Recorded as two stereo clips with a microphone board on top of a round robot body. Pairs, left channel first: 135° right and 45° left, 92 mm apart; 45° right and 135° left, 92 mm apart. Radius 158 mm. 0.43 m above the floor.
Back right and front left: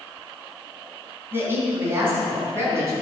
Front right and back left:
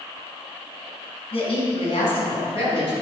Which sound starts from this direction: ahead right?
A woman speaking, at 1.3 s.